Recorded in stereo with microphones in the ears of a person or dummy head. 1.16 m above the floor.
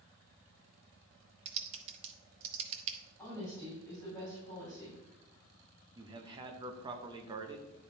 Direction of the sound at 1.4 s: 35° right (ahead or behind).